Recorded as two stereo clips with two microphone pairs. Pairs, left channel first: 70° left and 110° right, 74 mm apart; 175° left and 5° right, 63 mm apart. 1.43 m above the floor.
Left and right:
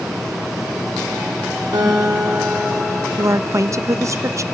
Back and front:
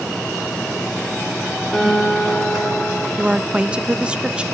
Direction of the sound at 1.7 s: 105° right.